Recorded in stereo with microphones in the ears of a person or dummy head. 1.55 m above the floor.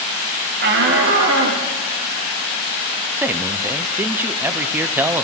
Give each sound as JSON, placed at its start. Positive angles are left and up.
{"t": 0.6, "sound": "a shout", "side_deg": -55, "distance_m": 1.2}
{"t": 3.2, "sound": "a man speaking", "side_deg": -10, "distance_m": 0.5}